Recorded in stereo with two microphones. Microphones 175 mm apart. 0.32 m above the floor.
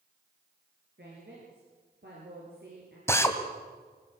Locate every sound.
1.0 s a woman speaking: 75° right (ahead or behind), 8 m
3.1 s a drill: 15° left (ahead or behind), 2.5 m